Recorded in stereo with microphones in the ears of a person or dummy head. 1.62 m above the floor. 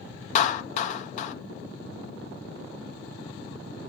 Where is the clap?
50° left (ahead or behind), 0.7 m.